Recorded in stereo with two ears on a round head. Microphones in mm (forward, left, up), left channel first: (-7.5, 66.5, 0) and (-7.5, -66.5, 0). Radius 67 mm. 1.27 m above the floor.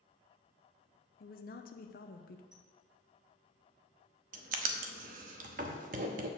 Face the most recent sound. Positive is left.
turn(degrees=-55)  # may be behind; listen again after turning